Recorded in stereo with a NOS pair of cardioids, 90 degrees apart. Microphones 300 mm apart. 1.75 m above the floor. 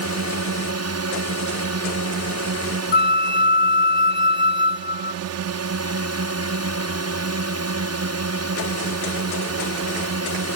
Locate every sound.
0.0 s a drone: 60° right
2.9 s a flute: 40° left